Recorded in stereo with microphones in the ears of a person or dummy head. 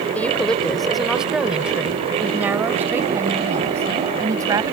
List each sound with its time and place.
0.1 s a woman speaking: 5° left (ahead or behind); by 4.7 s 20° right (ahead or behind)